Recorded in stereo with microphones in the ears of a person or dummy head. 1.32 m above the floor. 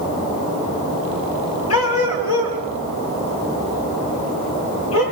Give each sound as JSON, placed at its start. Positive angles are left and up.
{"t": 1.7, "sound": "a dog barking", "side_deg": 70, "distance_m": 4.5}